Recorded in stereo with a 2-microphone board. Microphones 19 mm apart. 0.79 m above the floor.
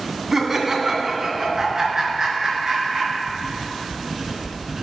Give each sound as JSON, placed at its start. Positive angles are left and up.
{"t": 0.3, "sound": "laughter", "side_deg": -30, "distance_m": 1.9}
{"t": 3.3, "sound": "writing", "side_deg": -30, "distance_m": 2.0}